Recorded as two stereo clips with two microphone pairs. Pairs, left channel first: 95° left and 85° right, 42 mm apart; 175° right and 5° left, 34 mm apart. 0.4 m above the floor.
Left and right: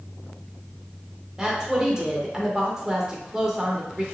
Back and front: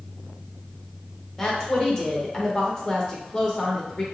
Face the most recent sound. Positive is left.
turn(degrees=-130)